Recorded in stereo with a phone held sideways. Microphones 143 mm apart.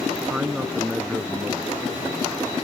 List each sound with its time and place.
0.3 s a man speaking: 10° right (ahead or behind)